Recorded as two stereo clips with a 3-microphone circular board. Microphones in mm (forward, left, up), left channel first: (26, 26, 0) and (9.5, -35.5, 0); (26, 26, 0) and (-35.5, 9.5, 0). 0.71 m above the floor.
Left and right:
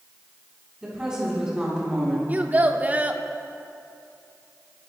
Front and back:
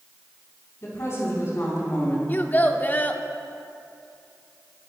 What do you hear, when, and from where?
0.8 s a woman speaking: 30° right, 5.5 m
2.3 s a child speaking: 45° right, 1.0 m